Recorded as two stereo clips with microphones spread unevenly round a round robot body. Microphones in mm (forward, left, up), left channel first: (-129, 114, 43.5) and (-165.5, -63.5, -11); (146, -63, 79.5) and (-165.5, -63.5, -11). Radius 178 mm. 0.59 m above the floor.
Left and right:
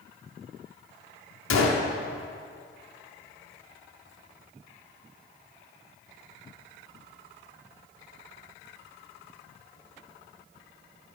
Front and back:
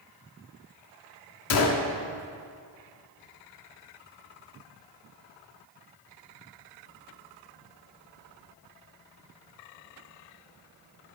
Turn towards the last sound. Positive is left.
turn(degrees=50)